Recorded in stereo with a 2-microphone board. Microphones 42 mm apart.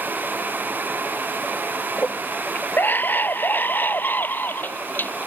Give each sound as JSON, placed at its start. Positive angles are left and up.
{"t": 2.0, "sound": "a scream", "side_deg": 55}